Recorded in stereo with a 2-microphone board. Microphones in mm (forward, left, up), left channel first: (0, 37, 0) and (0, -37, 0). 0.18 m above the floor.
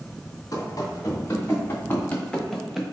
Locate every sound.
0.5 s running footsteps: 50° left (ahead or behind), 1.7 m; by 2.8 s 5° right (ahead or behind), 0.9 m